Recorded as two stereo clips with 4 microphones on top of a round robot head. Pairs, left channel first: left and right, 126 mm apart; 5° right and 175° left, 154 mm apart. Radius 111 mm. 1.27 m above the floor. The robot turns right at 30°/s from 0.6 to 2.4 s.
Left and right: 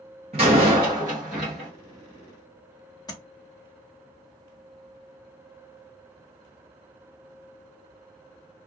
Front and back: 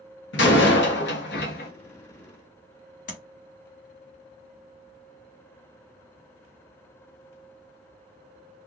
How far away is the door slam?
About 0.8 m.